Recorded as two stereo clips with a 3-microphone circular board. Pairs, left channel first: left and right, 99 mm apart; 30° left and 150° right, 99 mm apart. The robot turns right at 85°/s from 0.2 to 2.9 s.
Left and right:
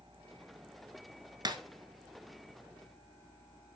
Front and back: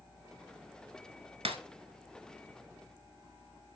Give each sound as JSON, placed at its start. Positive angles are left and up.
{"t": 1.4, "sound": "breaking glass", "azimuth_deg": -140, "distance_m": 1.2}